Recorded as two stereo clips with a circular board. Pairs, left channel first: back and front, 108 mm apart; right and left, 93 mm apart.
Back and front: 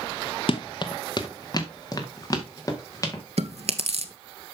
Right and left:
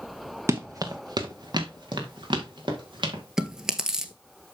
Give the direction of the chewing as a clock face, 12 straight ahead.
12 o'clock.